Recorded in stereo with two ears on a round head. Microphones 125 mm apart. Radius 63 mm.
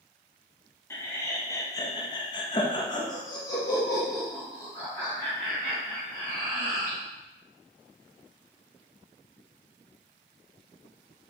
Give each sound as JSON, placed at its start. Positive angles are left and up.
{"t": 0.9, "sound": "laughter", "side_deg": 20, "distance_m": 1.0}